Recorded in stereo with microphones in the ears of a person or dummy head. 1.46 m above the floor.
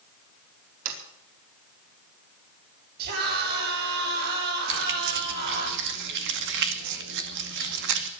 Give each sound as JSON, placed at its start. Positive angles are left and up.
{"t": 0.8, "sound": "a sliding door", "side_deg": -70, "distance_m": 4.5}
{"t": 3.0, "sound": "a scream", "side_deg": -55, "distance_m": 8.5}
{"t": 4.7, "sound": "keys jangling", "side_deg": -60, "distance_m": 2.0}